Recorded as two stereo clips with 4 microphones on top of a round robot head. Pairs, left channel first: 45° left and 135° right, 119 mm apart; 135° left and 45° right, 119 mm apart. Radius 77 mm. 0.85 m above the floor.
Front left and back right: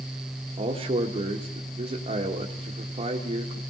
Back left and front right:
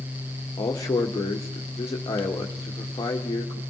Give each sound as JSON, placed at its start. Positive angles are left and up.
{"t": 0.6, "sound": "a man speaking", "azimuth_deg": -165, "distance_m": 1.6}